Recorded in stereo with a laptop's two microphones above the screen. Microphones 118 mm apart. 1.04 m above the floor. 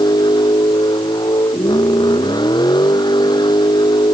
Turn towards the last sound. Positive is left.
turn(degrees=40)  # may be behind; listen again after turning